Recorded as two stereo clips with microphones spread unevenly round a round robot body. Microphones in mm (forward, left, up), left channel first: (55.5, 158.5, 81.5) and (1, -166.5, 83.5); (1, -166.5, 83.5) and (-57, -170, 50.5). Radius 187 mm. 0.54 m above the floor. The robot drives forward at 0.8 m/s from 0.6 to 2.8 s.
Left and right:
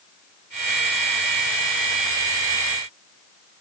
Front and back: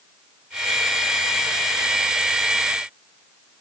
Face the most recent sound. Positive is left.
No sound to turn to.